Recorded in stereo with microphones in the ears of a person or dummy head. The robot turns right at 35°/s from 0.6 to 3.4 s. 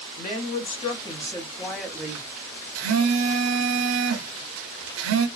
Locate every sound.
0.2 s a woman speaking: 140° left, 0.9 m; by 2.3 s 165° right, 0.9 m
2.8 s a phone buzzing: 80° right, 0.8 m; by 5.3 s 70° right (ahead or behind), 0.8 m